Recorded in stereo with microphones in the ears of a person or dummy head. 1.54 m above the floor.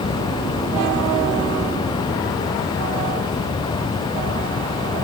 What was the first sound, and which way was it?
Only background noise.